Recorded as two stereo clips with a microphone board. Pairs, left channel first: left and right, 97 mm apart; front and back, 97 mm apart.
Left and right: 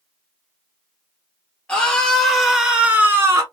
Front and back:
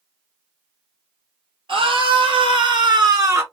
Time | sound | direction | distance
1.7 | a scream | 165° left | 3 m